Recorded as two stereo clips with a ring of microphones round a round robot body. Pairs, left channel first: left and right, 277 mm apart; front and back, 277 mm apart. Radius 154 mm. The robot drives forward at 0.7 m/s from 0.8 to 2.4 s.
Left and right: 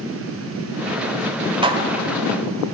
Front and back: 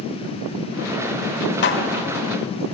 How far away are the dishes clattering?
About 1.0 m.